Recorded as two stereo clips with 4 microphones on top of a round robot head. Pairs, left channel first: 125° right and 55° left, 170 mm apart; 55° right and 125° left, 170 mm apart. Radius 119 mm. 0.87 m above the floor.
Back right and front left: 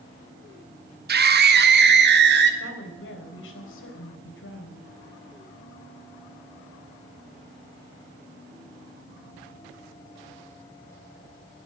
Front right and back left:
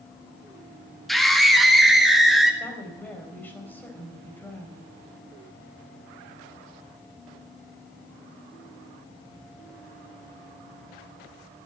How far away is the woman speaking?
About 4 m.